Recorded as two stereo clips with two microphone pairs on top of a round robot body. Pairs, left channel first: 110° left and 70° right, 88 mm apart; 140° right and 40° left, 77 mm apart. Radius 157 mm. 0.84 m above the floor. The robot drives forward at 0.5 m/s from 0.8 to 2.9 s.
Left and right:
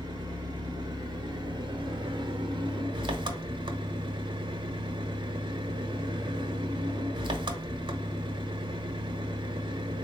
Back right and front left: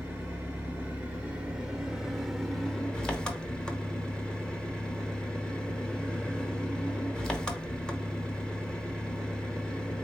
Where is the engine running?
35° right, 1.8 m; by 10.0 s 70° right, 1.2 m.